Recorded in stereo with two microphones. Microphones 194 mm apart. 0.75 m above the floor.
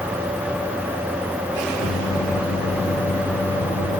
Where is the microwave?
40° left (ahead or behind), 5.5 m.